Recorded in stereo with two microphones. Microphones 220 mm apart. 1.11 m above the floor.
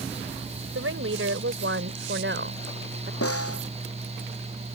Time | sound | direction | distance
0.8 | a woman speaking | 70° right (ahead or behind) | ?
3.2 | a snare drum | 85° left | ?